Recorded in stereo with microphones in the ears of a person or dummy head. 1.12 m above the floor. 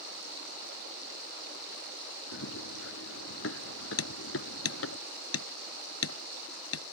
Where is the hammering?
80° left.